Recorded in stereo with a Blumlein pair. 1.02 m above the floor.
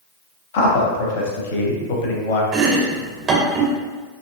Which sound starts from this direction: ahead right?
Chopping, at 2.5 s.